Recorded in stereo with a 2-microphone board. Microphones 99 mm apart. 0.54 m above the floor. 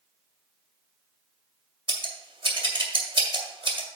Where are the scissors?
60° right (ahead or behind), 1.9 m.